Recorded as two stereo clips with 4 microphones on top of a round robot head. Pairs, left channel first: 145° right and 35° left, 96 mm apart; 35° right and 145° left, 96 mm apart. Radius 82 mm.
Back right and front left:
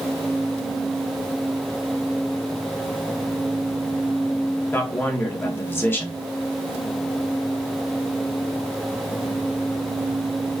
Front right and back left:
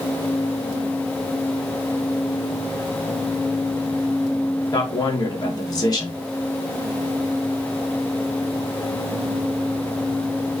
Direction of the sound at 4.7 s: 80° right.